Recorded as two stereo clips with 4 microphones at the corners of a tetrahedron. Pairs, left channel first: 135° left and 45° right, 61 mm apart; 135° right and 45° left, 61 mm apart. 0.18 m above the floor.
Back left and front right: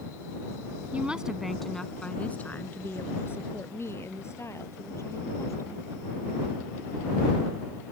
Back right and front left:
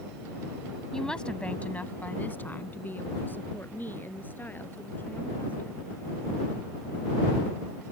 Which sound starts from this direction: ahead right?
A woman speaking, at 0.9 s.